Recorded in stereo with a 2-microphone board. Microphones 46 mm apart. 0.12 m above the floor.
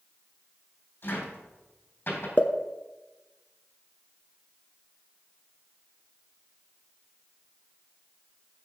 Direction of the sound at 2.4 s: 40° left (ahead or behind).